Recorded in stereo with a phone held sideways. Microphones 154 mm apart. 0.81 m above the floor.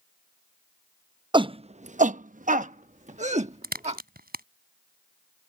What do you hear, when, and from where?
1.3 s a shout: 30° right (ahead or behind); by 4.0 s 45° right (ahead or behind)
3.6 s a crack: 85° right